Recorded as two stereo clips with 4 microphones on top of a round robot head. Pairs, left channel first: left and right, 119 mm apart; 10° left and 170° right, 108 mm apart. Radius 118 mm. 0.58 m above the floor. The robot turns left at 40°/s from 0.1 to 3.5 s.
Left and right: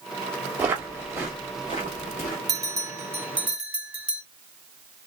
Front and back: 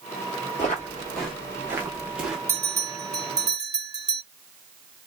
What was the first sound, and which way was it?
Footsteps, 20° right.